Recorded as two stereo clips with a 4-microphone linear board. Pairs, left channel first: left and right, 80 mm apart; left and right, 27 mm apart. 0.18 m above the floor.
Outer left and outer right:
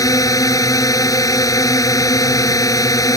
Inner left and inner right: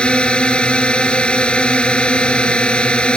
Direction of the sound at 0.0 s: 45° left (ahead or behind).